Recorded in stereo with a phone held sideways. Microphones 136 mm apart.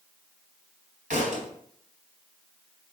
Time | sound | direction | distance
1.1 | a thud | 80° right | 4 m